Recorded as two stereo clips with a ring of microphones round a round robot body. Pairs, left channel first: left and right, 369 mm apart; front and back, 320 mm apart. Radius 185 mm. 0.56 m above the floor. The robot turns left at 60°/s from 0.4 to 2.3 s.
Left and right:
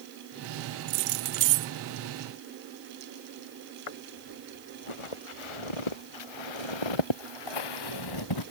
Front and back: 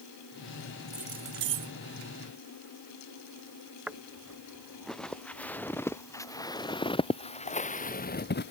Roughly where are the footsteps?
Left.